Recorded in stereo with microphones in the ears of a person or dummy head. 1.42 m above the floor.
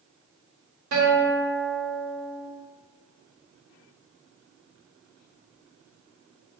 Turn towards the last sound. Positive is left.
turn(degrees=-65)  # may be behind; listen again after turning